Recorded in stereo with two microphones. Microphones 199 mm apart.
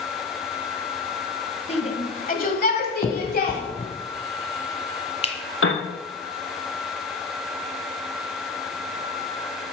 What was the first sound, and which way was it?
A shout, 30° left (ahead or behind).